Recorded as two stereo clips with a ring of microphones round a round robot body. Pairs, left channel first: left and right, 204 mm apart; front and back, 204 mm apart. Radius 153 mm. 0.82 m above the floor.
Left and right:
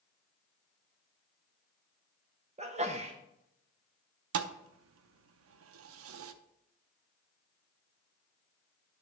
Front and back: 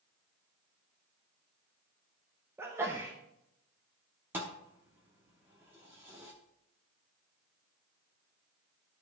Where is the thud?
95° right, 0.6 m.